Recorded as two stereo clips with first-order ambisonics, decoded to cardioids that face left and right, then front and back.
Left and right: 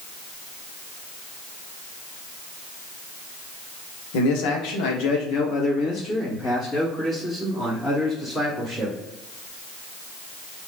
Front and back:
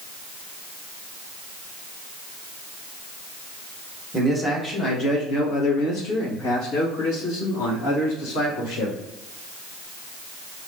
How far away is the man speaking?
About 1.1 m.